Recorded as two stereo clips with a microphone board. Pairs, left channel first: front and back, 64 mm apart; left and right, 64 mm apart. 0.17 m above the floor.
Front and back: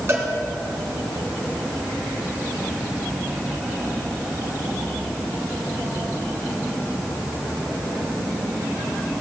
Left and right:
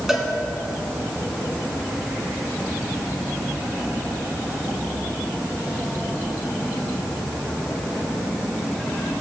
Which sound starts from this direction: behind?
A cowbell, at 0.1 s.